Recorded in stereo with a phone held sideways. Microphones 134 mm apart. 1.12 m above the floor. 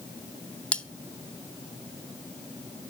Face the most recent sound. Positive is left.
turn(degrees=10)  # may be behind; listen again after turning